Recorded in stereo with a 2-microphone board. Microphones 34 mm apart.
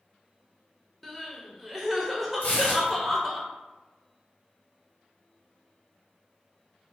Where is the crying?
Centre (ahead or behind), 0.5 m.